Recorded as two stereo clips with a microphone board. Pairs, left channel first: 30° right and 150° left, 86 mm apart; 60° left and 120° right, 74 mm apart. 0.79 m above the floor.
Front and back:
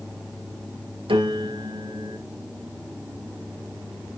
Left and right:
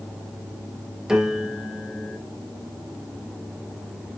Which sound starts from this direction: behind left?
A piano, at 1.1 s.